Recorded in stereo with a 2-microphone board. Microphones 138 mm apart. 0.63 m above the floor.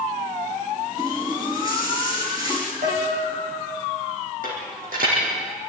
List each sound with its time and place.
1.0 s a running tap: 25° right (ahead or behind), 6 m
2.8 s a piano: 60° right (ahead or behind), 5.5 m
4.4 s a dropped coin: 80° right, 6 m